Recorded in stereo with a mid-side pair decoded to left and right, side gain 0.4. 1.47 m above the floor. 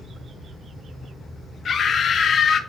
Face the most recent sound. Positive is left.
turn(degrees=55)